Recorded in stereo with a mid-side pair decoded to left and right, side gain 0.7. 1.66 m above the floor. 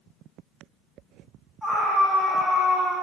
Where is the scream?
5° left, 3.5 m.